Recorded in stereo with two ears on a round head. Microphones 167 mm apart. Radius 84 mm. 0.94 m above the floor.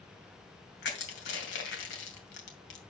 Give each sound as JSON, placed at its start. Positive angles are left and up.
{"t": 0.8, "sound": "crushing", "side_deg": 70, "distance_m": 2.5}